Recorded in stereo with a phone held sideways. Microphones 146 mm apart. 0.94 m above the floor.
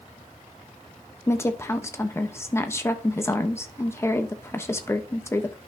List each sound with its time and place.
1.3 s a woman speaking: 20° left (ahead or behind), 1.0 m